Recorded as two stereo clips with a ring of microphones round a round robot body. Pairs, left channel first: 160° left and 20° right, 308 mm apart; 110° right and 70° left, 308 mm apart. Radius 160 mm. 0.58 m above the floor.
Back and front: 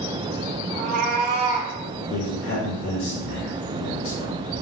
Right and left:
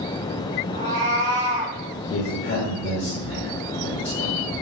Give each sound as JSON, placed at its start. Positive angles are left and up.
{"t": 0.7, "sound": "a cat meowing", "azimuth_deg": 15, "distance_m": 3.5}
{"t": 2.1, "sound": "a man speaking", "azimuth_deg": -160, "distance_m": 2.0}